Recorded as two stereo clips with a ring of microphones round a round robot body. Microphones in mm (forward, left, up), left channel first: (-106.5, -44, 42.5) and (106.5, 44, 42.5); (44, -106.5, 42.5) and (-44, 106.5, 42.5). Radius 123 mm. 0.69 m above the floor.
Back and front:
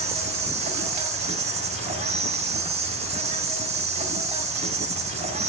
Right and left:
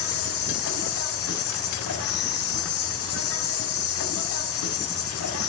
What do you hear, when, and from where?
0.0 s an insect: 40° right, 4 m